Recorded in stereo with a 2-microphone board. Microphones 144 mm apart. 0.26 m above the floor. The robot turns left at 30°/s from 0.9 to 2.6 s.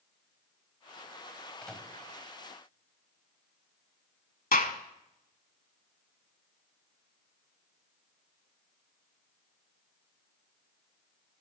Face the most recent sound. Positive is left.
turn(degrees=70)  # may be behind; listen again after turning